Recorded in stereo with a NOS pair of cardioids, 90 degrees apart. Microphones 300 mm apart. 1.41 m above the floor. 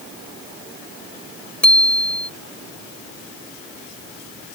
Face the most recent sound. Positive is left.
turn(degrees=5)